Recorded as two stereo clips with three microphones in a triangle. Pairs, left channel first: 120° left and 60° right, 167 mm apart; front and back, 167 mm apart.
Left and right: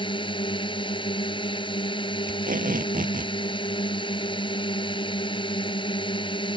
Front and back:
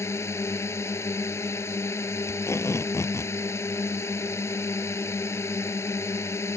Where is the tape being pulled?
70° right.